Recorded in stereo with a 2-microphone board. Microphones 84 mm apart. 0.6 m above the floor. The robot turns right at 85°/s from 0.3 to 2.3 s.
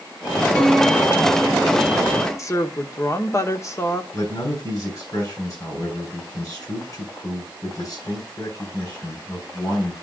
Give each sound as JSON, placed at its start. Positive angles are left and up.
{"t": 0.6, "sound": "a piano", "azimuth_deg": 170, "distance_m": 3.0}
{"t": 2.4, "sound": "a woman speaking", "side_deg": 40, "distance_m": 1.0}
{"t": 4.1, "sound": "a man speaking", "side_deg": 45, "distance_m": 6.5}